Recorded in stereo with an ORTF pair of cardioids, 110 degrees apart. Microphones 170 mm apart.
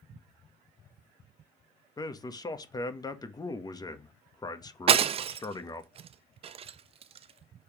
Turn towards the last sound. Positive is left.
turn(degrees=-35)